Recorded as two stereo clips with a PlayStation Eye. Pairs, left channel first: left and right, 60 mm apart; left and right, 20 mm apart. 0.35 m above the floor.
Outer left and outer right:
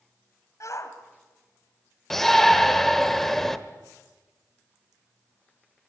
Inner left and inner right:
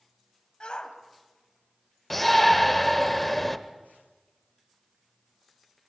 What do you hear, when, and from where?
0.6 s a shout: 55° left (ahead or behind), 1.8 m
2.1 s a shout: 10° left (ahead or behind), 1.0 m